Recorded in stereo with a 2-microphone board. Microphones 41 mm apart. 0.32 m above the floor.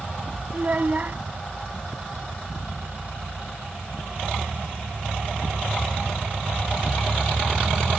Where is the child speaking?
40° right (ahead or behind).